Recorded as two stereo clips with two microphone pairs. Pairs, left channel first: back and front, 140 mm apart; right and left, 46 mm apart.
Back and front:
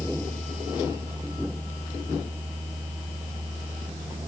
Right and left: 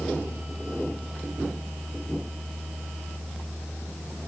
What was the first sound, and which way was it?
Only background noise.